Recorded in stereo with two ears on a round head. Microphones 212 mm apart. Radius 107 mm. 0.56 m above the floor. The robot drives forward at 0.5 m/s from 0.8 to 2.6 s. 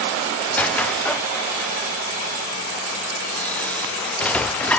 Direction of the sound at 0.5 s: 5° left (ahead or behind).